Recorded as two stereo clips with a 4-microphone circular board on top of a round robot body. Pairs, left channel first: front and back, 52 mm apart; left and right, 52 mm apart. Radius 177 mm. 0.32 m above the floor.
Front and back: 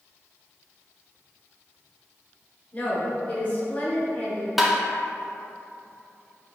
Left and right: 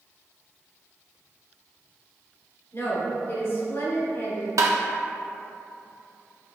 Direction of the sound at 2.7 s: 60° left.